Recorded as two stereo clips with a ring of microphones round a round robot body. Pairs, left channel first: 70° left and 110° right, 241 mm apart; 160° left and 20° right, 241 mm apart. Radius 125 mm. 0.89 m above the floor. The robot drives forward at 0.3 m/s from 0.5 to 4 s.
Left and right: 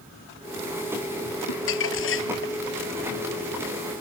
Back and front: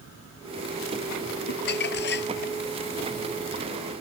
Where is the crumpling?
105° left; by 2.5 s 110° left.